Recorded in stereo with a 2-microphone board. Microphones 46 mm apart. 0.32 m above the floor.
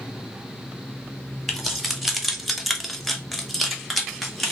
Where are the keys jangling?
Centre (ahead or behind), 0.9 m; by 4.5 s 5° left (ahead or behind), 1.1 m.